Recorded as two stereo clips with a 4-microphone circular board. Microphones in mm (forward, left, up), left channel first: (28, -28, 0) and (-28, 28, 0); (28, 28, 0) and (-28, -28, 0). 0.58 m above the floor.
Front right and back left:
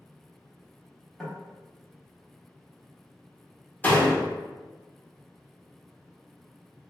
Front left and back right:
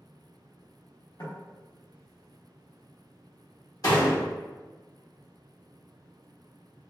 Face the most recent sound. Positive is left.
turn(degrees=20)